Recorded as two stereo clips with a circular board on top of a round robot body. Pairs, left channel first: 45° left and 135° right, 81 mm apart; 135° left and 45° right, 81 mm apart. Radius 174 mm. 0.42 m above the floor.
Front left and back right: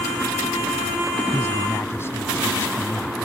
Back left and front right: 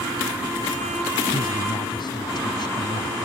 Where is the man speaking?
105° left.